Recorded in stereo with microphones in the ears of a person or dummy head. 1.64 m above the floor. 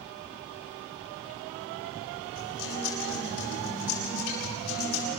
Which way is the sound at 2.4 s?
80° left.